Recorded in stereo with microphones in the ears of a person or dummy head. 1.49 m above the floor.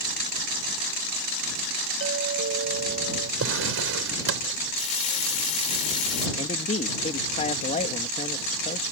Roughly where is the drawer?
Right.